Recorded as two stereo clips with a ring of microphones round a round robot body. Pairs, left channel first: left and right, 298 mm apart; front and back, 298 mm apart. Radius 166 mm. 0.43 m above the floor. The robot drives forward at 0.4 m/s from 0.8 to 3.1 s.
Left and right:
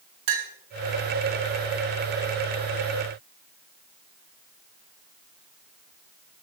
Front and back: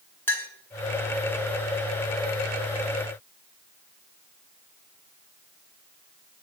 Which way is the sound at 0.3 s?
85° right.